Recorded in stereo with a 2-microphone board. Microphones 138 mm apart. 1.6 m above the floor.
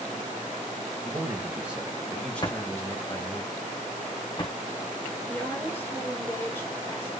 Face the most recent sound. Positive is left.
turn(degrees=15)  # may be behind; listen again after turning